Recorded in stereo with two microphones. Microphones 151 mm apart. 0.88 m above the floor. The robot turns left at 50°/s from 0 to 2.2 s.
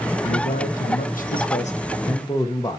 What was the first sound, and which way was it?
A man speaking, 130° left.